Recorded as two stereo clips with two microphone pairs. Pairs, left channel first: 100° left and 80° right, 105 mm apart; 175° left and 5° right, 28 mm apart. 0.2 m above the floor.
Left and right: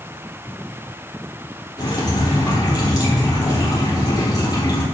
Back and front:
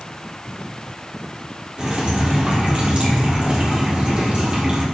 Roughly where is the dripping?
Ahead left.